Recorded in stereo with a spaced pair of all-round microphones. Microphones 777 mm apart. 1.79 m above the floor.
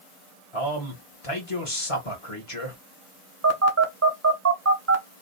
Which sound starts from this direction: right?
A phone buzzing, at 3.4 s.